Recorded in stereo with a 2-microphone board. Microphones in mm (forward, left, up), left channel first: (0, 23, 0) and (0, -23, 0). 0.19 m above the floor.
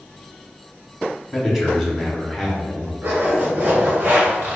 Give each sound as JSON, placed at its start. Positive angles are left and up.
{"t": 1.3, "sound": "a man speaking", "side_deg": -5, "distance_m": 1.2}
{"t": 3.0, "sound": "a zipper", "side_deg": -45, "distance_m": 1.5}